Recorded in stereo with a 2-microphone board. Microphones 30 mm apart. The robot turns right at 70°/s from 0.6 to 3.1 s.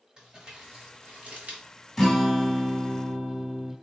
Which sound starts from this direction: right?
Crumpling, at 0.2 s.